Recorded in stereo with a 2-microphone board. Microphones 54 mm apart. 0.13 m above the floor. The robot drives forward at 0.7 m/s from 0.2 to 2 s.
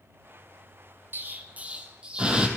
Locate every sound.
1.1 s an explosion: 45° right (ahead or behind), 0.5 m; by 2.5 s 20° right (ahead or behind), 1.0 m